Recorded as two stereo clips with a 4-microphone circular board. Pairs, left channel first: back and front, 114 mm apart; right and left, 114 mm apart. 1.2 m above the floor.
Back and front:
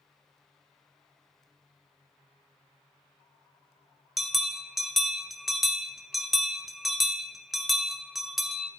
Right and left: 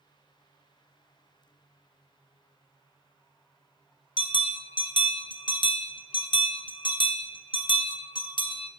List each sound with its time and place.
4.2 s a bell: 85° right, 0.9 m